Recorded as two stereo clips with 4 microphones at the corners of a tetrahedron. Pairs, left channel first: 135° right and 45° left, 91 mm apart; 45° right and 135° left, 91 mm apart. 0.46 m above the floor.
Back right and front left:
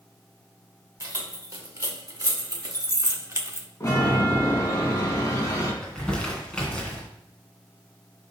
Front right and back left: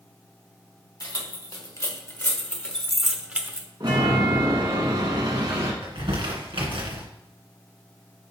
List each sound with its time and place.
1.0 s keys jangling: 10° right, 1.4 m; by 3.7 s 90° left, 0.8 m
3.8 s a chime: 170° left, 1.7 m
5.8 s crumpling: 145° left, 2 m